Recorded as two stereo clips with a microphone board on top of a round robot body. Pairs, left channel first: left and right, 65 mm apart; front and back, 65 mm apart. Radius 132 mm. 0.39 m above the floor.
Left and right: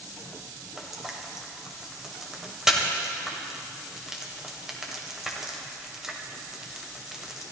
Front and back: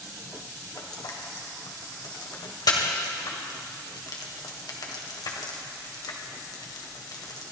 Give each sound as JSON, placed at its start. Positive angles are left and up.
{"t": 0.8, "sound": "frying", "azimuth_deg": -5, "distance_m": 2.0}